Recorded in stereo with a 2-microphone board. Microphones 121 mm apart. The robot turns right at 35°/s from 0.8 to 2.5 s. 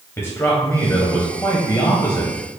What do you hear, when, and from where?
0.2 s a man speaking: 20° left (ahead or behind), 1.0 m; by 2.3 s 25° left (ahead or behind), 1.0 m